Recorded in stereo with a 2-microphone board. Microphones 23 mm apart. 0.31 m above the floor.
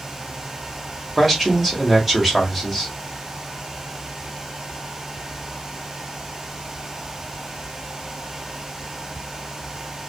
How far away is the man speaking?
About 0.8 m.